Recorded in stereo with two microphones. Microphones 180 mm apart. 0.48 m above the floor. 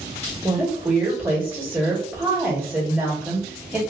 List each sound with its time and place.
0.4 s a woman speaking: 10° right (ahead or behind), 1.4 m